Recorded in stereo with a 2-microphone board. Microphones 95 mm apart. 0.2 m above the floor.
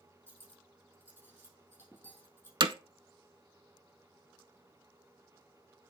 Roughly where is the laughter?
No laughter in this recording.